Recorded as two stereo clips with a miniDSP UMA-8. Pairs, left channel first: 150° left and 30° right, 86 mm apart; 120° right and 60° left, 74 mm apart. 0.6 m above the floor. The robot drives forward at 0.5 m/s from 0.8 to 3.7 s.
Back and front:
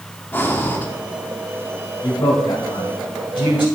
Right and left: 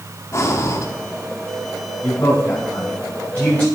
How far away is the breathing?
About 1.2 m.